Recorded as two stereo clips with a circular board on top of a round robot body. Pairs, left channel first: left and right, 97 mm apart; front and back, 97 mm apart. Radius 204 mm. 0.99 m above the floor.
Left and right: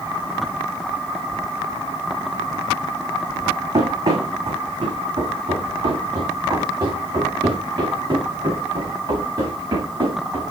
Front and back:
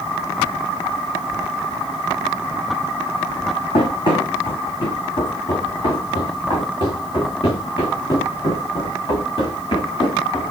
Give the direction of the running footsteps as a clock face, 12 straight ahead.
1 o'clock.